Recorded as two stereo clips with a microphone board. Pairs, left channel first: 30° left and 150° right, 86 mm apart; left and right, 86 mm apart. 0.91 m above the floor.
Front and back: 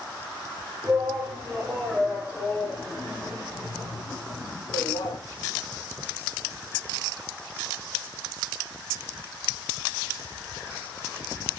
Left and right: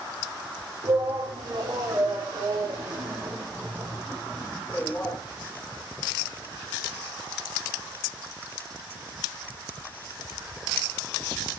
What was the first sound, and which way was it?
A shout, 75° right.